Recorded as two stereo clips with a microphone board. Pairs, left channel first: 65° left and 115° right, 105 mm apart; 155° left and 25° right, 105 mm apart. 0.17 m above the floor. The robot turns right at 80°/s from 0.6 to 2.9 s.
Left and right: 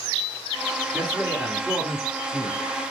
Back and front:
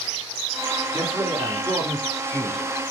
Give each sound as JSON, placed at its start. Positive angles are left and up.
{"t": 0.9, "sound": "a man speaking", "azimuth_deg": -65, "distance_m": 1.3}